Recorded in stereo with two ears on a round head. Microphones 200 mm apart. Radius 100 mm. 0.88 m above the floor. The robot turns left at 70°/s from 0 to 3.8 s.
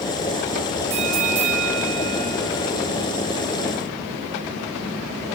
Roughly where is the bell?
Ahead right.